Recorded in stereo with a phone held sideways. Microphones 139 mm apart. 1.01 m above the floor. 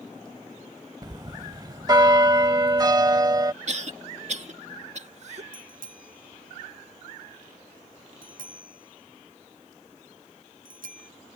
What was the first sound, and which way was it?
A bell, 30° right (ahead or behind).